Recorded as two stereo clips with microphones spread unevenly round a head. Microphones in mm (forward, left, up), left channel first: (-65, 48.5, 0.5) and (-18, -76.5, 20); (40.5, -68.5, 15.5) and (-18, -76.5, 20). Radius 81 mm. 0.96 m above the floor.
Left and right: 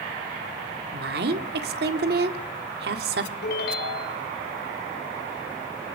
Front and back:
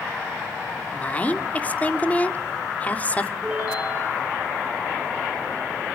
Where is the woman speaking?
55° right, 2 m.